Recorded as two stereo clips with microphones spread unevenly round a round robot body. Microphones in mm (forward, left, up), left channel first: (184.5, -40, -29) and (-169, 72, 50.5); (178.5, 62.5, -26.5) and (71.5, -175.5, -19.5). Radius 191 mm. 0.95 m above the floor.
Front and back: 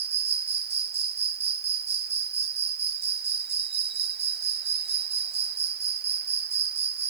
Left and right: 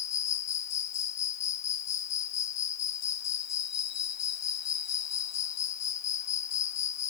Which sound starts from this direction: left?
An insect, at 0.0 s.